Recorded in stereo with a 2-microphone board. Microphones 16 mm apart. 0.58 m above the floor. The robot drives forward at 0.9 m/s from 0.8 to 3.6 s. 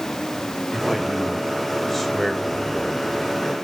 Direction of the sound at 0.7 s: 15° left (ahead or behind).